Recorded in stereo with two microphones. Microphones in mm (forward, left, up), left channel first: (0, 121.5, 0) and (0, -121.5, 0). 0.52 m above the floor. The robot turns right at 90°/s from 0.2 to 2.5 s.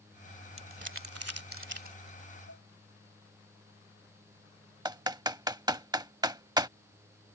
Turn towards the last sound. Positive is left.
turn(degrees=-15)  # may be behind; listen again after turning